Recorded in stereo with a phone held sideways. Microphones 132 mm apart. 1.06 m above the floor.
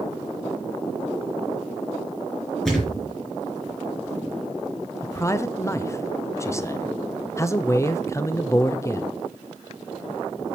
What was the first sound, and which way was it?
A thud, 5° left (ahead or behind).